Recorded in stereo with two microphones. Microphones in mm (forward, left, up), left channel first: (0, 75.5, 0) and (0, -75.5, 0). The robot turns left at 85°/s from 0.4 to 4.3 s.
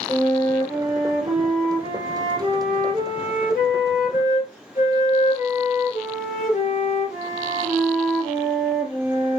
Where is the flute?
25° left, 3.5 m; by 9.4 s 50° left, 3.5 m.